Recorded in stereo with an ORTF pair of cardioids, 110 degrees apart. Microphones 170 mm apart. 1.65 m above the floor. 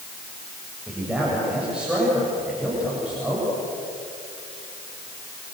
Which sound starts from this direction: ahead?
A man speaking, at 0.9 s.